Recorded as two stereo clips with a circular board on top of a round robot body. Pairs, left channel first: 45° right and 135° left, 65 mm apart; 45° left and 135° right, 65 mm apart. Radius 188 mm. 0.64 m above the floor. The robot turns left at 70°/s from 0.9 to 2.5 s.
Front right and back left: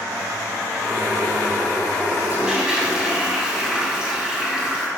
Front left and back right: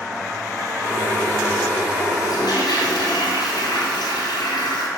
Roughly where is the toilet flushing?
Left.